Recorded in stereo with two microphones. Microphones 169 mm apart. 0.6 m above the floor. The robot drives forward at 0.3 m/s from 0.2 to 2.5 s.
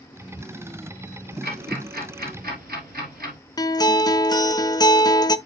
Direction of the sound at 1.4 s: 70° right (ahead or behind).